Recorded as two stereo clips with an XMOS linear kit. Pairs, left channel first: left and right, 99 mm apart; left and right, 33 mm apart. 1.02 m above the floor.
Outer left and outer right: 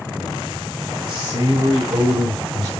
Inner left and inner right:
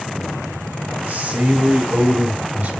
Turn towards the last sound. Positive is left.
turn(degrees=-85)